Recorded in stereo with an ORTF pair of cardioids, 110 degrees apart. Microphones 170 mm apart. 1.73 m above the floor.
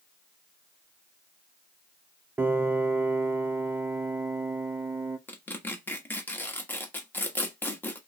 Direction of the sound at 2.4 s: 15° right.